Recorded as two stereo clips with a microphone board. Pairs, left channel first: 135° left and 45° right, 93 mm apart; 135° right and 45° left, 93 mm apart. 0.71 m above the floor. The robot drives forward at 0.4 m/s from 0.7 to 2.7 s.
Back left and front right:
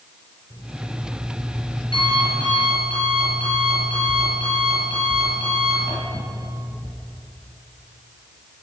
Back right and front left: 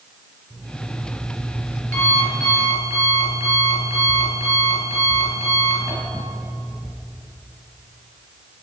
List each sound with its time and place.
0.5 s an alarm clock: 165° left, 4.5 m